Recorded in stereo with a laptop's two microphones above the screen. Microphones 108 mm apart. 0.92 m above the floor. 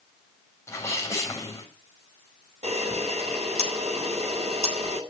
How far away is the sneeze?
About 6.5 m.